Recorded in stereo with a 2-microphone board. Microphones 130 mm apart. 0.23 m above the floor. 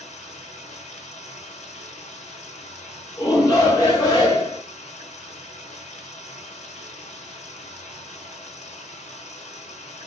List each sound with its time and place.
0.0 s running water: 65° left (ahead or behind), 1.3 m
3.2 s a shout: 25° left (ahead or behind), 2 m